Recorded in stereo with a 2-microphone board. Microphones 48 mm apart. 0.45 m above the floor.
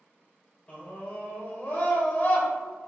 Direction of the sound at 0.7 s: 25° left (ahead or behind).